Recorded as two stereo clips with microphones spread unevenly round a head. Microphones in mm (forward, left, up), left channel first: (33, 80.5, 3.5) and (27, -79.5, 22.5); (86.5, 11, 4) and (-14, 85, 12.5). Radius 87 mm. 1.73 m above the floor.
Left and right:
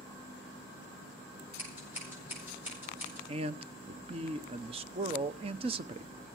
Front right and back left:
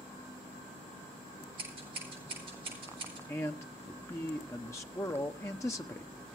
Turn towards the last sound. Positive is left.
turn(degrees=-105)